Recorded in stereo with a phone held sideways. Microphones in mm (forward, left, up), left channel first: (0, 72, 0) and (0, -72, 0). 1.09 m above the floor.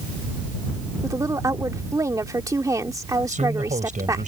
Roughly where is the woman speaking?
Right.